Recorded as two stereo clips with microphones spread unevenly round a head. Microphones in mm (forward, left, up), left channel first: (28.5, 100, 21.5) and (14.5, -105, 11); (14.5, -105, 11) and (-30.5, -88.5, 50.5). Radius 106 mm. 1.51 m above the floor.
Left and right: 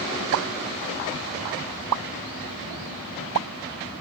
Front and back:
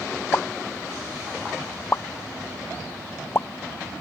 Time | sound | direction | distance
0.3 | a pop | 75° right | ?